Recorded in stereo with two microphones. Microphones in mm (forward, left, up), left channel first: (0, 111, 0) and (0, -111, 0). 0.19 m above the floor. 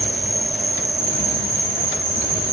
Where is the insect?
20° right (ahead or behind), 4.5 m.